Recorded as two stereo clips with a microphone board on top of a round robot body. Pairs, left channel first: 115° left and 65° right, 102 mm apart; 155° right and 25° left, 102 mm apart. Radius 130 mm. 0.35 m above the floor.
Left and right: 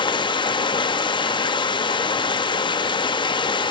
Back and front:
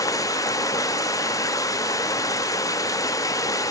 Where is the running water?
150° left, 0.8 m.